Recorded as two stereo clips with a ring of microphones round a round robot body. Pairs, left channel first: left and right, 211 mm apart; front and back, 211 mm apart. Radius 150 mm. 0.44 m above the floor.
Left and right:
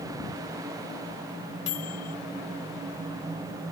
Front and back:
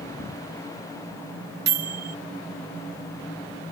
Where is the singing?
No singing in this recording.